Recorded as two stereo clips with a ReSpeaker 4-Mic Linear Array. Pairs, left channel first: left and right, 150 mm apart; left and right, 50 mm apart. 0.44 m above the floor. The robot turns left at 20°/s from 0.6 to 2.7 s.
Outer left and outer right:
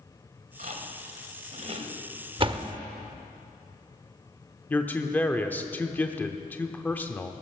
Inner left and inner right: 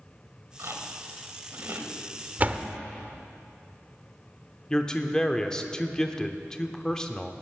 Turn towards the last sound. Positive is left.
turn(degrees=10)  # may be behind; listen again after turning